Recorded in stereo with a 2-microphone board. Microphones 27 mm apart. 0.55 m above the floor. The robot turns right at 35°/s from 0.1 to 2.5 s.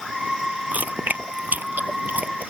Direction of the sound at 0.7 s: 65° right (ahead or behind).